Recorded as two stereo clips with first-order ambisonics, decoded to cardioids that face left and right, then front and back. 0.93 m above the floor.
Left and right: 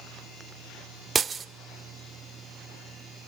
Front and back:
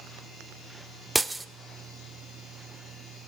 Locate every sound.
1.1 s breaking glass: 115° right, 0.5 m